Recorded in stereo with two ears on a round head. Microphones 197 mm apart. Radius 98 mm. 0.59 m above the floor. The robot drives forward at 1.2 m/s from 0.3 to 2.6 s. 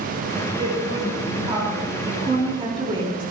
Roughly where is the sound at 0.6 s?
Right.